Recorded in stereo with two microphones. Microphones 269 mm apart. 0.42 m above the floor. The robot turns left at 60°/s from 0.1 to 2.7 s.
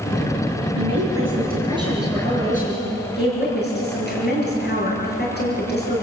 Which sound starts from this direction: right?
A woman speaking, at 0.8 s.